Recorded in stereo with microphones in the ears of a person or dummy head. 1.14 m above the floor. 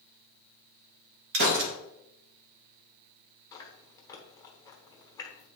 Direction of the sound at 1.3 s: 55° right (ahead or behind).